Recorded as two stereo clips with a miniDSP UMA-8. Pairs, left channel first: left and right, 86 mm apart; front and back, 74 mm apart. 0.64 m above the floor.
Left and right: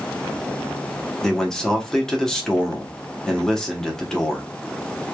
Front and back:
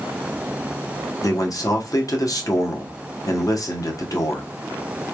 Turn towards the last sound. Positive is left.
turn(degrees=10)